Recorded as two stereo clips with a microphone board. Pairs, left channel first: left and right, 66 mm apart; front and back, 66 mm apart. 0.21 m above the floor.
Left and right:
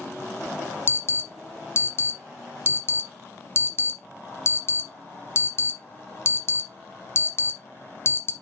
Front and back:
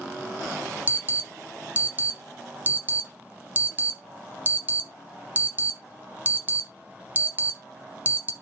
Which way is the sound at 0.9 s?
125° left.